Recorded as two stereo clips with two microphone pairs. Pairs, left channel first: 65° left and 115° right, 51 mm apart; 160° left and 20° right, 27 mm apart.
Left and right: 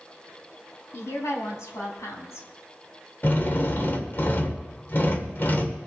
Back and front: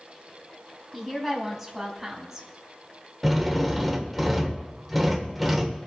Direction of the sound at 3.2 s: 75° left.